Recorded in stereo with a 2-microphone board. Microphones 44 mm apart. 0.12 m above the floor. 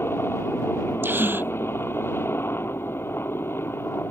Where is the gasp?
55° right (ahead or behind).